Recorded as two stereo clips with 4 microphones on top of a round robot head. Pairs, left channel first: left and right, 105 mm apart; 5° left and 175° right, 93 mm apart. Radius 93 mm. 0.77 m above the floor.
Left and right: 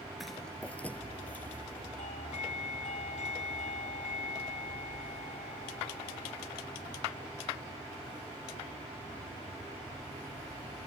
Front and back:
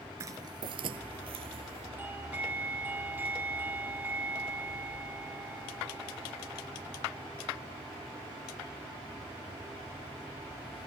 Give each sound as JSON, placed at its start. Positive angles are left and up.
{"t": 0.2, "sound": "footsteps", "azimuth_deg": 180}
{"t": 2.0, "sound": "a doorbell", "azimuth_deg": 115}